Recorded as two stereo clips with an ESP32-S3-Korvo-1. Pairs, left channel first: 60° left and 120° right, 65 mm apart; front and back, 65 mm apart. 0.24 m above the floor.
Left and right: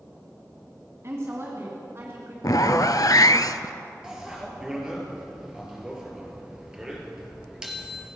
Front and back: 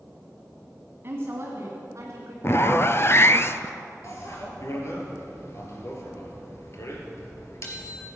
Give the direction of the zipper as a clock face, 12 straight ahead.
11 o'clock.